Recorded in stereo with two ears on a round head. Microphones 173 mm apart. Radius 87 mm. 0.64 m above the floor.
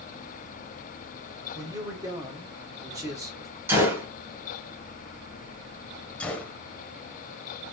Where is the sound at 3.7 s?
10° right (ahead or behind), 2 m.